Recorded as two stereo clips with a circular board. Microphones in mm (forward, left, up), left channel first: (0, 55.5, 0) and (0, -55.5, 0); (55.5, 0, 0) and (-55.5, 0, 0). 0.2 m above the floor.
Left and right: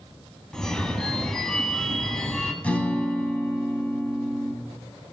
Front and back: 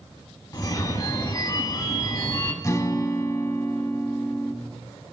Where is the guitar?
25° left, 0.8 m.